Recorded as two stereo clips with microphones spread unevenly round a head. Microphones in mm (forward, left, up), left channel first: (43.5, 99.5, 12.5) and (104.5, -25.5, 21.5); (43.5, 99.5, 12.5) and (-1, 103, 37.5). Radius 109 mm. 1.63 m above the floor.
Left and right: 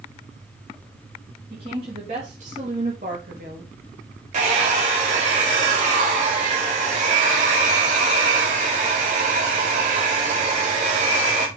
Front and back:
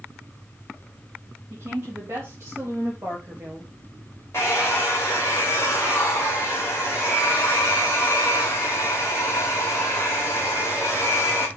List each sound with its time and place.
1.5 s a woman speaking: 130° right, 2.5 m; by 3.7 s 110° right, 1.7 m
4.3 s a hair dryer: 85° right, 1.6 m